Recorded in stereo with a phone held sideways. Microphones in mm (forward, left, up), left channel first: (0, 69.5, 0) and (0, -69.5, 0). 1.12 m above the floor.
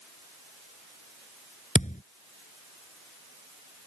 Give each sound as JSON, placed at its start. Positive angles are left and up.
{"t": 1.8, "sound": "a thud", "side_deg": 60}